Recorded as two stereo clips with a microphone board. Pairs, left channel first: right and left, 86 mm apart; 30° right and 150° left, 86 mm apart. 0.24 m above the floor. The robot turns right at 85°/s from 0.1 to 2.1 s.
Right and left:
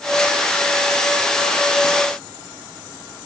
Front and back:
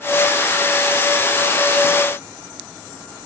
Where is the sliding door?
I don't hear a sliding door.